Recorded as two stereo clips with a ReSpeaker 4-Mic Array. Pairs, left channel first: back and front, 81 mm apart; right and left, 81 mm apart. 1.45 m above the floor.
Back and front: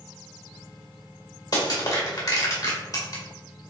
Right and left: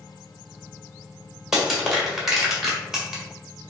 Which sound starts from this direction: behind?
Crushing, at 1.5 s.